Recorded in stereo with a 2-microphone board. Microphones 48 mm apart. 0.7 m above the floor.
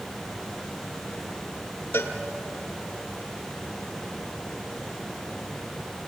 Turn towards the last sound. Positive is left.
turn(degrees=50)  # may be behind; listen again after turning